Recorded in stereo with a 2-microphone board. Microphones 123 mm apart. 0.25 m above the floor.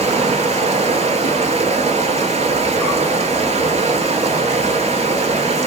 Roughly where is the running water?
Right.